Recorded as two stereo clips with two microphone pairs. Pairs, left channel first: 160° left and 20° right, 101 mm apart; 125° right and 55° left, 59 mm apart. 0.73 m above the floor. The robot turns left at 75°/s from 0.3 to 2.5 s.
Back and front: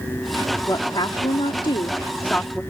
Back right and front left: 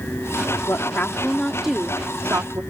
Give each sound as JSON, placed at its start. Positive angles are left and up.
{"t": 0.7, "sound": "a woman speaking", "azimuth_deg": -145}